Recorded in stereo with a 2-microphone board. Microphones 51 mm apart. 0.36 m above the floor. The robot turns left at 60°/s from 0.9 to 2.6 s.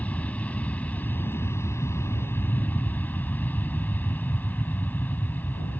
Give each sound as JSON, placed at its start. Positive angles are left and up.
{"t": 0.0, "sound": "an aircraft", "azimuth_deg": 145}